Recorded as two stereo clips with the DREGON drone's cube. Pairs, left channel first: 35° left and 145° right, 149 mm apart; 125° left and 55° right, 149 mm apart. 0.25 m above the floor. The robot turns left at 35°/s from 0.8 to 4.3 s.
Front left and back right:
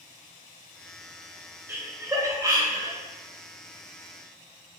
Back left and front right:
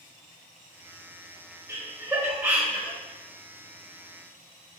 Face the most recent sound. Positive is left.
turn(degrees=180)